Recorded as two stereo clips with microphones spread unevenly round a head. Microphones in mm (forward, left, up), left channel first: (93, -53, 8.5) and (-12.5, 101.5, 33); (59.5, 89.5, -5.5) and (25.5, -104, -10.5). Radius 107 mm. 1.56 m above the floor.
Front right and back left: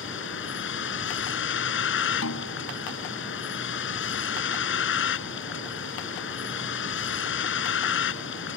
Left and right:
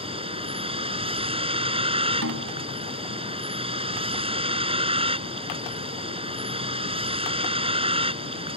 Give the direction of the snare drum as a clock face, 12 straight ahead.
3 o'clock.